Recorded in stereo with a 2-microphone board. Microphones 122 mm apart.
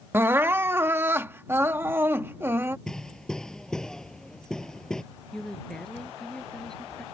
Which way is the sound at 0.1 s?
20° right (ahead or behind).